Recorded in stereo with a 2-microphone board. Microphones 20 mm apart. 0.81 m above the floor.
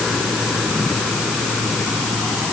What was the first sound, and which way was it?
Only background noise.